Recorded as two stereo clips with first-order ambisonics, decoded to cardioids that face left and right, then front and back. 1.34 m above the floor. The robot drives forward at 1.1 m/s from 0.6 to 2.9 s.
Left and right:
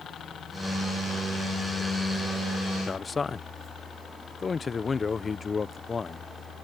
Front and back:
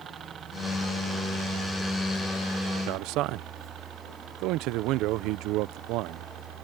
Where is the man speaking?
160° left; by 6.3 s 165° left.